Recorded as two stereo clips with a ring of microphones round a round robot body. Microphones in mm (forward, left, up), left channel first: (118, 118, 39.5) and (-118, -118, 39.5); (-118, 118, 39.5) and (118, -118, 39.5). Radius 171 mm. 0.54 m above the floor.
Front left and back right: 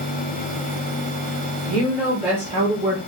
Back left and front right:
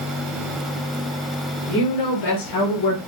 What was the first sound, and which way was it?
A woman speaking, 135° left.